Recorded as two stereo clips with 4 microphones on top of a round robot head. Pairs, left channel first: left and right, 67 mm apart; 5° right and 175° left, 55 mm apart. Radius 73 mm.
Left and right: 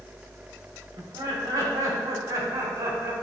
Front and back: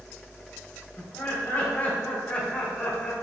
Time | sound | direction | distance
1.0 | laughter | 60° right | 3 m